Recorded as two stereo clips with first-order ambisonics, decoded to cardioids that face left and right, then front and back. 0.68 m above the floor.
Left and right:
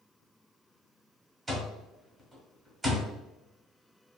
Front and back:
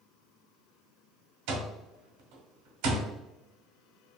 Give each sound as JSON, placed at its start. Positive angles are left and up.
{"t": 1.5, "sound": "an alarm clock", "azimuth_deg": -170, "distance_m": 0.8}